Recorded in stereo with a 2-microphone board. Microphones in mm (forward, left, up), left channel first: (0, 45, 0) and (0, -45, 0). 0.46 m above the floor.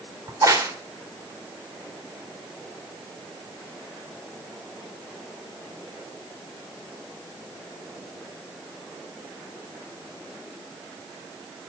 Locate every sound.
0.3 s a crack: 40° right (ahead or behind), 1.9 m